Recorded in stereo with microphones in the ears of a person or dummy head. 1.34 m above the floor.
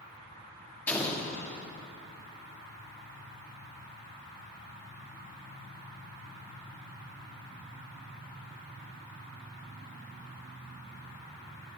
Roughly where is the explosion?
Centre.